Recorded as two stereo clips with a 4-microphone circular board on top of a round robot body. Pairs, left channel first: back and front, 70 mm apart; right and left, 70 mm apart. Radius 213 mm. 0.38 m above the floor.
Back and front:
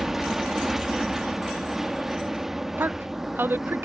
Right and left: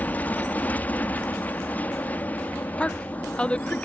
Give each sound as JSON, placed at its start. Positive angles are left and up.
{"t": 0.0, "sound": "an aircraft", "azimuth_deg": -75}
{"t": 2.8, "sound": "a woman speaking", "azimuth_deg": -30}